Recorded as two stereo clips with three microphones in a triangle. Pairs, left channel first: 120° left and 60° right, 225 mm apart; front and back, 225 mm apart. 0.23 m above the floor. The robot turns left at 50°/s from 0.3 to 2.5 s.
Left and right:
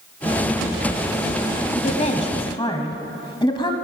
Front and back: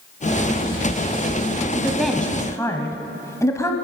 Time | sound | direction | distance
1.8 | a woman speaking | 105° left | 1.1 m